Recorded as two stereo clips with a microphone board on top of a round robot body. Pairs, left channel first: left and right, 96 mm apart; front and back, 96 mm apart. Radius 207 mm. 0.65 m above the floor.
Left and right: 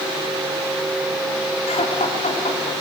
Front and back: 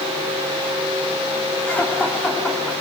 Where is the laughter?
75° left, 8.5 m; by 2.7 s 80° left, 10 m.